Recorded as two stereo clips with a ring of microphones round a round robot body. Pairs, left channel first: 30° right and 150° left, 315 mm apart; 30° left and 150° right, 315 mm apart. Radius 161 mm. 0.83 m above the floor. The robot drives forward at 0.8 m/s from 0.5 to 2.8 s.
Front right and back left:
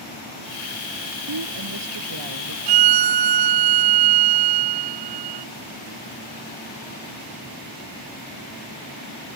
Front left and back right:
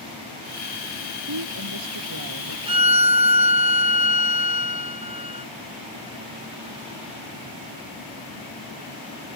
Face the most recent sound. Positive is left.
turn(degrees=135)